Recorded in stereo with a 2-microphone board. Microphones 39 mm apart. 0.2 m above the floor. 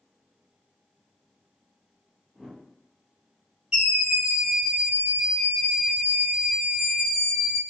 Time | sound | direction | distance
2.4 | a whoosh | 10° right (ahead or behind) | 0.7 m
3.7 | a scream | 20° right (ahead or behind) | 1.5 m